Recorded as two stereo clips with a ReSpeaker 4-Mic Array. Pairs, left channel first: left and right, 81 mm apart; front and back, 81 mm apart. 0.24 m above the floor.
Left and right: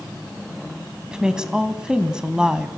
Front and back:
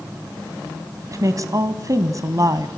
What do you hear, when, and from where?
1.1 s a woman speaking: 170° right, 1.9 m